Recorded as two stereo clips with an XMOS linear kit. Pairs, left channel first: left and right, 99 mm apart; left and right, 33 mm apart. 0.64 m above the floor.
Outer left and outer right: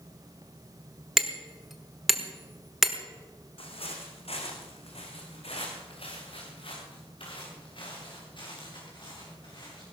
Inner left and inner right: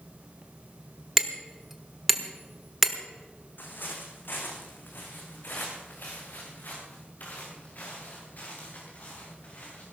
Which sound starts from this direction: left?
Footsteps, at 3.6 s.